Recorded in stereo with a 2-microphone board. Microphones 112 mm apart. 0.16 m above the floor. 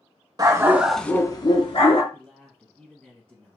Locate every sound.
0.4 s a dog barking: 35° right (ahead or behind), 0.7 m; by 2.0 s 65° left (ahead or behind), 0.9 m
2.1 s a man speaking: 10° left (ahead or behind), 1.3 m